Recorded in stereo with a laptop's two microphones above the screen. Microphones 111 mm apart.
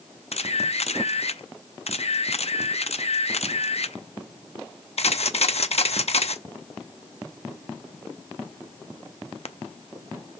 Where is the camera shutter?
70° left (ahead or behind), 0.5 m.